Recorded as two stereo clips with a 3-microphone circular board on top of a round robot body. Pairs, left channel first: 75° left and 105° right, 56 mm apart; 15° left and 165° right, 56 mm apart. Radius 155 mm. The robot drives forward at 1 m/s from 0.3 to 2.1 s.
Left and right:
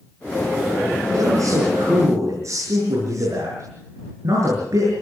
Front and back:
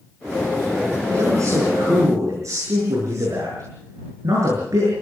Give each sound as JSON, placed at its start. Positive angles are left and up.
{"t": 1.1, "sound": "a man speaking", "azimuth_deg": -130, "distance_m": 8.0}